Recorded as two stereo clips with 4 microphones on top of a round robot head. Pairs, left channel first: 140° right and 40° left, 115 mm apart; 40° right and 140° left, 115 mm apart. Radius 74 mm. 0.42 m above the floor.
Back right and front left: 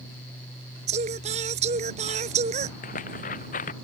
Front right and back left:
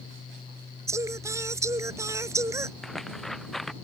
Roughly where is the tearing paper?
Behind right.